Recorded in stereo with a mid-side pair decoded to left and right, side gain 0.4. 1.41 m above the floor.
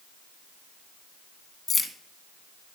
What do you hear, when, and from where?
1.7 s keys jangling: 35° left, 1.4 m